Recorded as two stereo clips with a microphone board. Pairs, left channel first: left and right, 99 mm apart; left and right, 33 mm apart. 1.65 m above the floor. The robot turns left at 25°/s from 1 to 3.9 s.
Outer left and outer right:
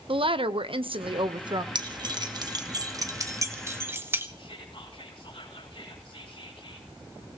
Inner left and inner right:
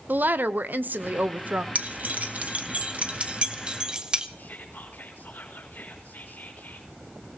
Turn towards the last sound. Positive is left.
turn(degrees=65)  # may be behind; listen again after turning